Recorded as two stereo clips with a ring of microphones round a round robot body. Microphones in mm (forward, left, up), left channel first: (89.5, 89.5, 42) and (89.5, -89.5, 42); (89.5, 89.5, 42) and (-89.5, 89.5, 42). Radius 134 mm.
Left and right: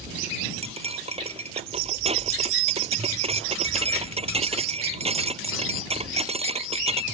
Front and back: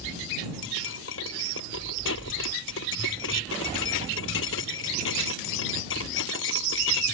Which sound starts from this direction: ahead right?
Cutlery clinking, at 0.6 s.